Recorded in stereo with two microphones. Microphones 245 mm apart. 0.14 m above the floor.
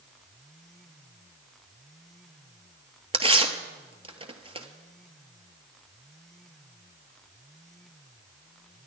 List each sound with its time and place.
3.1 s tearing paper: 25° right (ahead or behind), 1.0 m